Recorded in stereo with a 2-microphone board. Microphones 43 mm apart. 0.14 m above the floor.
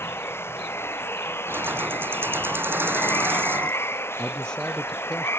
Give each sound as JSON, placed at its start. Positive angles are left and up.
{"t": 0.0, "sound": "running water", "side_deg": 70}
{"t": 1.5, "sound": "keys jangling", "side_deg": -55}
{"t": 4.2, "sound": "a man speaking", "side_deg": 20}